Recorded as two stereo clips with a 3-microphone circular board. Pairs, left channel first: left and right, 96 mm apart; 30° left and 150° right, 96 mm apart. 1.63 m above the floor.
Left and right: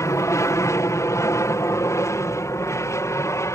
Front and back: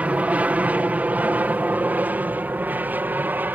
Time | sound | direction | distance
0.0 | an aircraft | 140° left | ?